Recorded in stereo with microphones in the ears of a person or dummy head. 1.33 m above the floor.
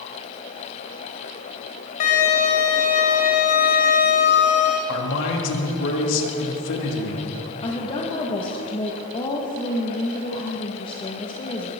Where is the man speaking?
70° left (ahead or behind), 2.5 m.